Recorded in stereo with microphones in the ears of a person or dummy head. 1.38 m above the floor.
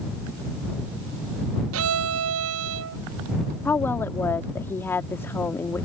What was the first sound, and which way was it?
A violin, 65° right (ahead or behind).